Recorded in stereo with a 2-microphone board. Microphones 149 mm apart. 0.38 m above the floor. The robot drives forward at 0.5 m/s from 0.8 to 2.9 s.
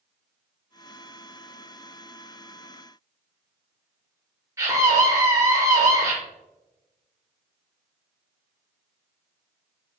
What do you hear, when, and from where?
4.6 s a scream: 20° right (ahead or behind), 1.2 m